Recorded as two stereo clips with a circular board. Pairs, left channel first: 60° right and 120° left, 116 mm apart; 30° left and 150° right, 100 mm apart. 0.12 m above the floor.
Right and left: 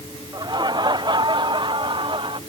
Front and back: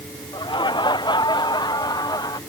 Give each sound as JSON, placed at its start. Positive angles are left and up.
{"t": 0.3, "sound": "laughter", "azimuth_deg": 70}